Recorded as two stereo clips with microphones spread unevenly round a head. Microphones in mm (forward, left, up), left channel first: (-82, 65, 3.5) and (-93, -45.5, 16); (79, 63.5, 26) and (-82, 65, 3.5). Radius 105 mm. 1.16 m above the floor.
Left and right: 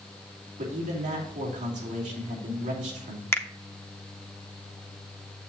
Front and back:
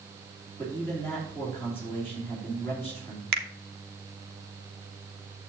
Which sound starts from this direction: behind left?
A finger snap, at 3.3 s.